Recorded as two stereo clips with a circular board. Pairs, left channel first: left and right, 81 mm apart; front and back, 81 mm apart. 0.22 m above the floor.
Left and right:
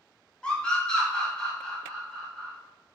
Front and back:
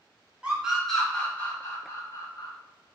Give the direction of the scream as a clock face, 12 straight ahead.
7 o'clock.